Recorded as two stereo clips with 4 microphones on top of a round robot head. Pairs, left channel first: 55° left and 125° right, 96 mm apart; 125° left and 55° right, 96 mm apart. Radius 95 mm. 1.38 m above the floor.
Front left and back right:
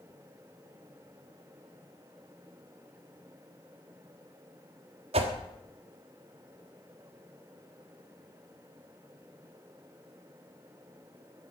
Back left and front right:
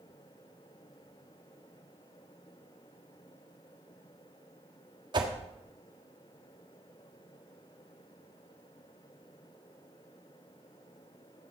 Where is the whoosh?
100° right, 1.5 m.